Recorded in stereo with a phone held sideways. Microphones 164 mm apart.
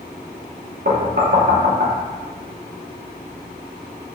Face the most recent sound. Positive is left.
turn(degrees=-65)  # may be behind; listen again after turning